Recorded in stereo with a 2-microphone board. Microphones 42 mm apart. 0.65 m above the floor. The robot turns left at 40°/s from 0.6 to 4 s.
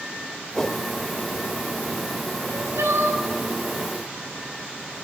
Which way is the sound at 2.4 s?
70° right.